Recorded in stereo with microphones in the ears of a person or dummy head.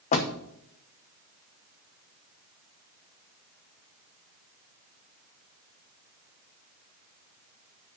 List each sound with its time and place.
0.1 s a door slam: 40° left (ahead or behind), 0.9 m